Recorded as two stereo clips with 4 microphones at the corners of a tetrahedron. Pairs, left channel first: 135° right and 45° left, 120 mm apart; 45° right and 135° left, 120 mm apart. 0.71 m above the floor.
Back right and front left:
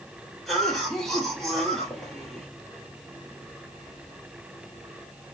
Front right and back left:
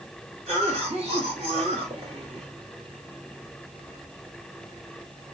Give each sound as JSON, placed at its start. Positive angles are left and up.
{"t": 0.5, "sound": "a cough", "azimuth_deg": 140, "distance_m": 1.8}